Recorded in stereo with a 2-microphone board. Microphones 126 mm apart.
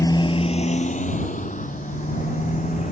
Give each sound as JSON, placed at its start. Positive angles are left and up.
{"t": 0.0, "sound": "a motorcycle", "side_deg": 30}